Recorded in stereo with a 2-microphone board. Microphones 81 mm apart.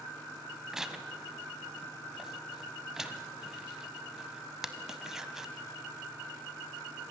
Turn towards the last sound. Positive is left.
turn(degrees=-5)  # may be behind; listen again after turning